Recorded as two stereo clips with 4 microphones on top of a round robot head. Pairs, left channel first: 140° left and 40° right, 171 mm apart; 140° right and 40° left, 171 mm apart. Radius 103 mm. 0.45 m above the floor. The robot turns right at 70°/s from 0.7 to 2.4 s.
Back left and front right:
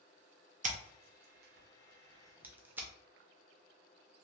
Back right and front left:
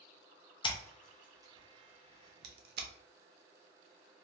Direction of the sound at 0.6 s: 80° right.